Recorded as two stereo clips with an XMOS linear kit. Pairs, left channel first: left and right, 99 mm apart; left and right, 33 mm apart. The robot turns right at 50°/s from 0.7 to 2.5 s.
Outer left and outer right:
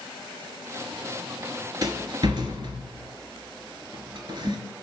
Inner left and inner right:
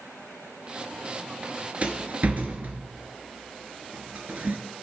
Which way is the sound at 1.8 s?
45° right (ahead or behind).